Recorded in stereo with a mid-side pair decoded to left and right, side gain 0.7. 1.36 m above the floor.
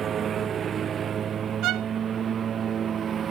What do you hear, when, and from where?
0.0 s a lawn mower: 35° right
1.6 s a violin: 60° right